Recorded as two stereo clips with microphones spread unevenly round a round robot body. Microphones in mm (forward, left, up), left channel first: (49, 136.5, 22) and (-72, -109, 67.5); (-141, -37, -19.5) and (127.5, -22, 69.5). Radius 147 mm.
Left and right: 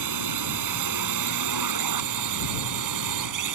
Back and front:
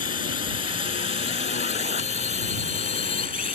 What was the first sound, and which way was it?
A drone, 125° right.